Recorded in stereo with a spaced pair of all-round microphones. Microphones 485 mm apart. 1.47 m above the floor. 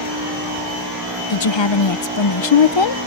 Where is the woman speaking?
65° left (ahead or behind).